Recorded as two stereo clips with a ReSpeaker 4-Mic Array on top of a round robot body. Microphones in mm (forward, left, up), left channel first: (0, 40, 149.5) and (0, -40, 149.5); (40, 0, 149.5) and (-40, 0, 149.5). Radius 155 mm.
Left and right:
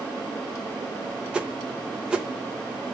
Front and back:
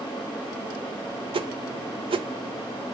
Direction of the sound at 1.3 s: 170° right.